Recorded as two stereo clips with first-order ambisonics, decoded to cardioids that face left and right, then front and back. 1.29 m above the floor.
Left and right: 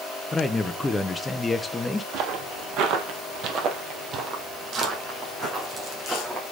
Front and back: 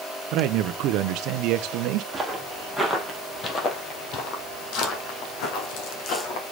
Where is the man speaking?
170° left, 0.6 m.